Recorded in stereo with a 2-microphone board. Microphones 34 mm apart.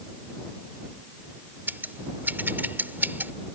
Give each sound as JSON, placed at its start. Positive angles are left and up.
{"t": 1.7, "sound": "scissors", "side_deg": -70}